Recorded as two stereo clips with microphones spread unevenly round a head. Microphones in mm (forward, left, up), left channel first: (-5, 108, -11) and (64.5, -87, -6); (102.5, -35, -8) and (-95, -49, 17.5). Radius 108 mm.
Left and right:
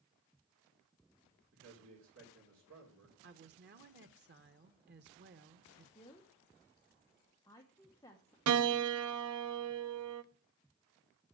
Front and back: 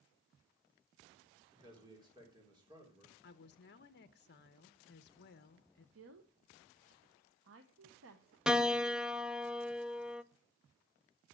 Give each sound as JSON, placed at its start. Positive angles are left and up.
{"t": 1.5, "sound": "a man speaking", "azimuth_deg": -105, "distance_m": 3.5}
{"t": 3.2, "sound": "a woman speaking", "azimuth_deg": -30, "distance_m": 0.9}
{"t": 6.0, "sound": "a woman speaking", "azimuth_deg": -175, "distance_m": 1.0}
{"t": 8.5, "sound": "a piano", "azimuth_deg": -85, "distance_m": 0.7}